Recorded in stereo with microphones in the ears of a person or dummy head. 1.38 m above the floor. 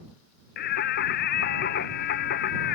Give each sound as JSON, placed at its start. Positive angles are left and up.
{"t": 0.6, "sound": "singing", "side_deg": 60}